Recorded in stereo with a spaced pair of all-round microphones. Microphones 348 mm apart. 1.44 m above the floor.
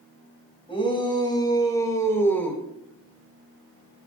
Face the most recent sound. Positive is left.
turn(degrees=5)  # may be behind; listen again after turning